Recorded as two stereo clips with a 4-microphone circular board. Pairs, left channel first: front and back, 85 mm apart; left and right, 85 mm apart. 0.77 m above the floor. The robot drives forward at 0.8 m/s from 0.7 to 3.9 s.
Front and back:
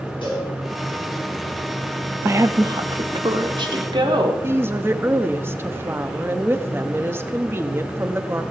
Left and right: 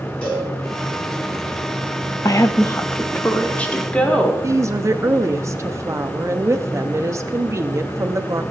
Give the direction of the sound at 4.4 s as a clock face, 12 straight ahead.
4 o'clock.